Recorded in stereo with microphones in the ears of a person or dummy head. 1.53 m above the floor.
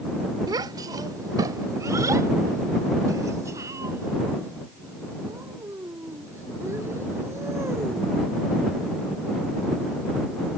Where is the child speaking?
30° right (ahead or behind); by 8.2 s 20° right (ahead or behind).